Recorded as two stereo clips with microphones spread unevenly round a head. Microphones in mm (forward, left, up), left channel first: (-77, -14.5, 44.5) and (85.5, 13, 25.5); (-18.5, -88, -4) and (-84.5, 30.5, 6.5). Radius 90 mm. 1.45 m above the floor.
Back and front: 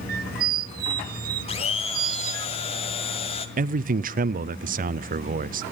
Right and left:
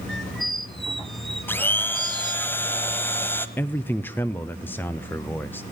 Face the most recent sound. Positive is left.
turn(degrees=10)